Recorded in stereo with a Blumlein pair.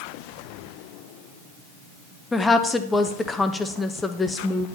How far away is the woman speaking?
About 0.8 m.